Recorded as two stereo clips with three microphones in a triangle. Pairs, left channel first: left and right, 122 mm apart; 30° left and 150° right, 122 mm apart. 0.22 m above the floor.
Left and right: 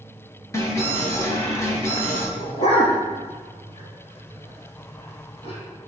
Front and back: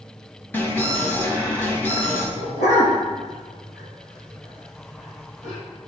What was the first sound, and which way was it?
An alarm, 80° left.